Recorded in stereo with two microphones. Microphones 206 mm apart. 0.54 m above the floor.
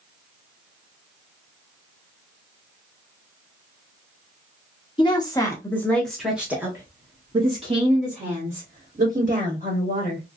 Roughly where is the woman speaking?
Left.